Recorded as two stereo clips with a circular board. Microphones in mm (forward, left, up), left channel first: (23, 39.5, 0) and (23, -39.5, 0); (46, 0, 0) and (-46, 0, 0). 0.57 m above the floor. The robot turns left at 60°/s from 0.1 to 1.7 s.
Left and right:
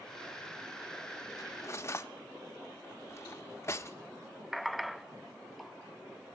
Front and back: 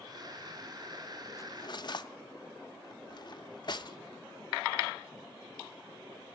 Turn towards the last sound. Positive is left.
turn(degrees=35)